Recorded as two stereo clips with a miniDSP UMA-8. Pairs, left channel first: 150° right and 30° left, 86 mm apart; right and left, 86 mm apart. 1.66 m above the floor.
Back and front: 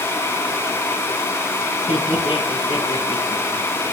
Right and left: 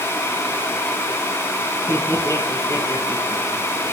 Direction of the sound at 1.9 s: 145° right.